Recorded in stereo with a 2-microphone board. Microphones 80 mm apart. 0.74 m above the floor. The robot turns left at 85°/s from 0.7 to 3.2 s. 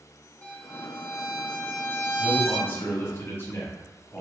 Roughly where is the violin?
Behind.